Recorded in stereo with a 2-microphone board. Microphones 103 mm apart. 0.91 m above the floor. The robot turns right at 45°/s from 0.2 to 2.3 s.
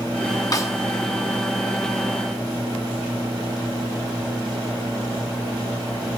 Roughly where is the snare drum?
Left.